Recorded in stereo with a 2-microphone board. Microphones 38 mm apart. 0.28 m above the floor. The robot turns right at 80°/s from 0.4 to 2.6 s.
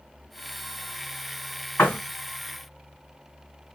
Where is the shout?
I don't hear a shout.